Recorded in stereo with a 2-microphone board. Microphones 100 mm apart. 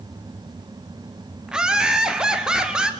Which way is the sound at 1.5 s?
5° right (ahead or behind).